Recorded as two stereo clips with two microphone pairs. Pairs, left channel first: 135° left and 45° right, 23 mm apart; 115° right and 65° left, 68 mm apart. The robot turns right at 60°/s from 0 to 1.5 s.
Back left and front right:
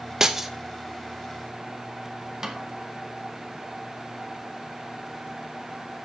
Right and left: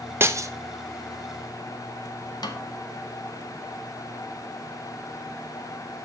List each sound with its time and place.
0.2 s breaking glass: 20° left, 0.8 m; by 0.5 s 35° left, 0.8 m
2.4 s a snare drum: 110° right, 1.6 m